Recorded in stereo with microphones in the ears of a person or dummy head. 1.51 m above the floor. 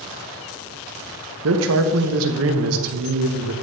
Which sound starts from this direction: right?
A man speaking, at 1.4 s.